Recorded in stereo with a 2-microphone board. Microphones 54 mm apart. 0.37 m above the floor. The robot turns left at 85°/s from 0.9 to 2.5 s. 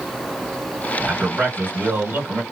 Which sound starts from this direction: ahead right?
A man speaking, at 1.0 s.